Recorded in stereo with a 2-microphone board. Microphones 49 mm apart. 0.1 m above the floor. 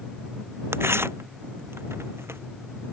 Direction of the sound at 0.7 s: 60° right (ahead or behind).